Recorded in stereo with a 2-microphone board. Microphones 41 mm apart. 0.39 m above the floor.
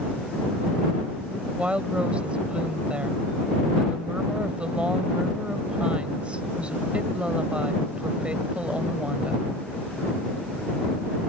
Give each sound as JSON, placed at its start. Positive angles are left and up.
{"t": 1.6, "sound": "a woman speaking", "side_deg": -25}